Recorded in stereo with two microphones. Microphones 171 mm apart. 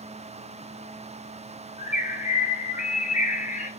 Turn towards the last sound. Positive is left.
turn(degrees=50)  # may be behind; listen again after turning